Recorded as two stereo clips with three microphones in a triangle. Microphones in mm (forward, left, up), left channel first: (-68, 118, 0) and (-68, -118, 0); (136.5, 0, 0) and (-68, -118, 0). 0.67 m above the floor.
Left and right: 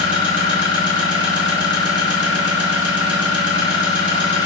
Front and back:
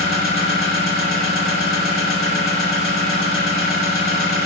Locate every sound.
0.0 s an engine running: 100° right, 1.5 m